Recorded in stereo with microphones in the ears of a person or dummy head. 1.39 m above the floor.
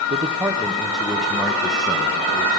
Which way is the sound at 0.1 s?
25° right (ahead or behind).